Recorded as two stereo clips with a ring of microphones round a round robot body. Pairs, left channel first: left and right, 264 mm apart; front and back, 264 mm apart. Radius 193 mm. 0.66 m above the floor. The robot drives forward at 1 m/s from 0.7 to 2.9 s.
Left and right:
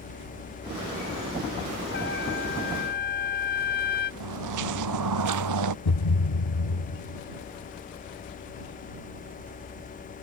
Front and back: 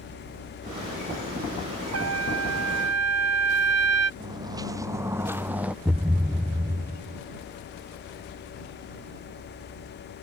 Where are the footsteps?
100° right; by 5.8 s 95° right.